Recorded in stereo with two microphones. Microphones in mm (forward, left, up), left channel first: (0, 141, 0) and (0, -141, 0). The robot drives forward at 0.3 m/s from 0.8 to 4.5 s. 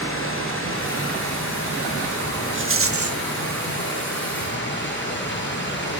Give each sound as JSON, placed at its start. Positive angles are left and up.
{"t": 0.0, "sound": "running water", "side_deg": 45, "distance_m": 8.5}
{"t": 2.5, "sound": "a rattle", "side_deg": -40, "distance_m": 0.6}